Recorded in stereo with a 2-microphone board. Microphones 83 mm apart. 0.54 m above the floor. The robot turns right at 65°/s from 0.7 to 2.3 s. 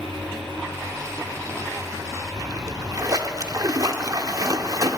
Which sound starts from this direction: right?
A splash, at 2.4 s.